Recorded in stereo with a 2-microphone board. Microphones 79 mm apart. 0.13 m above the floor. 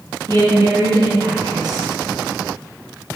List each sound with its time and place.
0.3 s a woman speaking: 55° right (ahead or behind), 3.5 m